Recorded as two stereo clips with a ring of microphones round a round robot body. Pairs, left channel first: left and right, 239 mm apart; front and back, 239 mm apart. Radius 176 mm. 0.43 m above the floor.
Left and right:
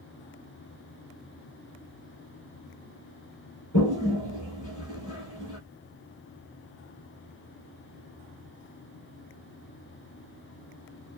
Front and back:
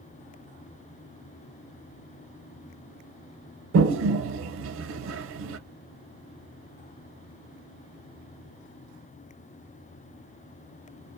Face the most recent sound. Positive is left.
turn(degrees=145)